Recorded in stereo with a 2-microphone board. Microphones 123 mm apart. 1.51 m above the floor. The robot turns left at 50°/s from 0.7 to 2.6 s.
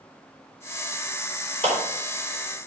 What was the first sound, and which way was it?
A clap, 55° right (ahead or behind).